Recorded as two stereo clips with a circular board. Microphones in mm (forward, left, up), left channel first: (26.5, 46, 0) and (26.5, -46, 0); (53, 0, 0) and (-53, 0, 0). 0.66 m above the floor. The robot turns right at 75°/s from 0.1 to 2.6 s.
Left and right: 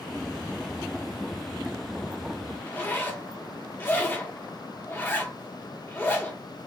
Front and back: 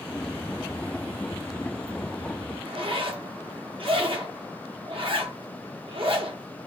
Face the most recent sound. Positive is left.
turn(degrees=155)